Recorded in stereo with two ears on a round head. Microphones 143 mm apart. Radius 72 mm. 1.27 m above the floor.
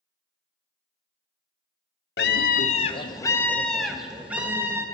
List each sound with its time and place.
2.2 s a scream: 70° left (ahead or behind), 0.7 m; by 4.8 s 15° right (ahead or behind), 1.4 m